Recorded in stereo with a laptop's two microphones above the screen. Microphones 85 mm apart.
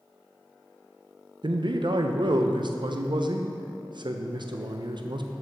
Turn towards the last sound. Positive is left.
turn(degrees=-60)  # may be behind; listen again after turning